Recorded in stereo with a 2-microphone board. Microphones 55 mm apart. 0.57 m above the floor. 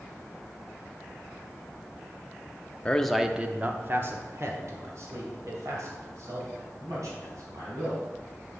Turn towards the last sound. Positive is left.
turn(degrees=-70)  # may be behind; listen again after turning